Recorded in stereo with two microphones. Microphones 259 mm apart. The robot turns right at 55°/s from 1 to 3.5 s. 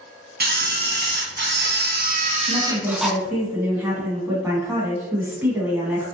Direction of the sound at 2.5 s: 10° left (ahead or behind).